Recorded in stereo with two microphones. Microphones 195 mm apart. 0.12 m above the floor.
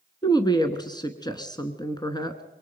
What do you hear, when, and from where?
0.2 s a woman speaking: 20° left (ahead or behind), 1.1 m